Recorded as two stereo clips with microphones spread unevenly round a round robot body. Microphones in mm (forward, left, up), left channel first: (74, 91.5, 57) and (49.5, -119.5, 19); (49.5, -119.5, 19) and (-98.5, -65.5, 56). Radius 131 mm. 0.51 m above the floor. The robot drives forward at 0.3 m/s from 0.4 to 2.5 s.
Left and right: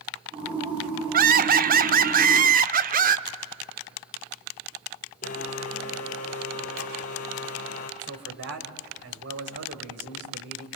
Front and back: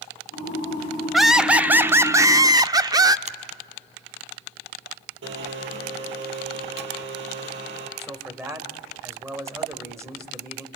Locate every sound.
1.1 s laughter: 100° right, 1.0 m; by 3.2 s 125° right, 1.1 m
3.3 s a finger snap: 150° right, 1.5 m
5.2 s a blender: 145° left, 3.5 m
8.0 s a man speaking: 120° right, 3 m